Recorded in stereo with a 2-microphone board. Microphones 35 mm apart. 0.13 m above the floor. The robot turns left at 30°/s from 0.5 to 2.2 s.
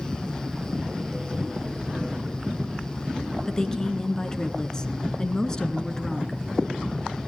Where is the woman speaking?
20° left (ahead or behind), 1.4 m.